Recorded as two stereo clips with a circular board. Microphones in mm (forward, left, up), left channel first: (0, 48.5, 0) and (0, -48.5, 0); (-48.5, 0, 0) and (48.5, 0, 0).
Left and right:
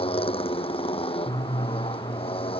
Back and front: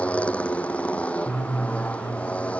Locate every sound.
0.0 s a motorcycle: 105° left